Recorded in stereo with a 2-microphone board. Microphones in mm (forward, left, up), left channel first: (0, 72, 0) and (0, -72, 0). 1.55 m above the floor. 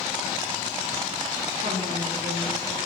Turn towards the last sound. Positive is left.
turn(degrees=-75)  # may be behind; listen again after turning